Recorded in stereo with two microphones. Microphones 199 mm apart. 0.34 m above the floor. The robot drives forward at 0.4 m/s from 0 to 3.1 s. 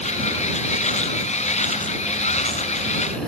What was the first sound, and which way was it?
Only background noise.